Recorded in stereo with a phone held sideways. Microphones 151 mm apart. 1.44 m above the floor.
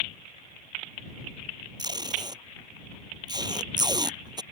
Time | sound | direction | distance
1.8 | tape being pulled | 30° right (ahead or behind) | ?